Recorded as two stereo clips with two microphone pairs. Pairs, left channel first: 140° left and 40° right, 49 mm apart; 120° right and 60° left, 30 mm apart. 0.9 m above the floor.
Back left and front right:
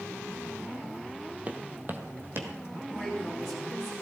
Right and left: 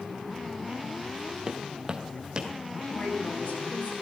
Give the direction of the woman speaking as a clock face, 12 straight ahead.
4 o'clock.